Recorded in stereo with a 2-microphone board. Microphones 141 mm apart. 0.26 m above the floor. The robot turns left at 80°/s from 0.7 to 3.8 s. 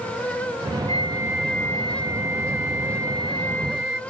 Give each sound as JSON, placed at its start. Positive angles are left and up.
{"t": 0.9, "sound": "a flute", "azimuth_deg": -135}